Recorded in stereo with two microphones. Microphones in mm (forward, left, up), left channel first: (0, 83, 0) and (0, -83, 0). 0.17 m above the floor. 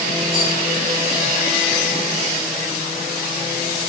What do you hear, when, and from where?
0.3 s a rattle: 30° right (ahead or behind), 7 m